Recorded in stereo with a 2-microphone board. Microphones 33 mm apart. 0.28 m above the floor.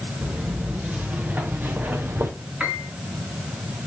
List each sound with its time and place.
0.2 s footsteps: 30° right (ahead or behind), 3 m; by 2.3 s 80° right, 1.6 m
2.6 s a piano: 30° right (ahead or behind), 3.5 m